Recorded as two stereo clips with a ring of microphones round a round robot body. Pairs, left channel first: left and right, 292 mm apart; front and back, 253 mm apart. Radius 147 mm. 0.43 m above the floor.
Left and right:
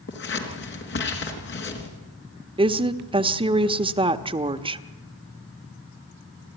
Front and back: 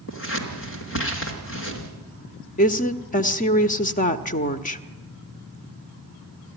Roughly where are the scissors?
Ahead left.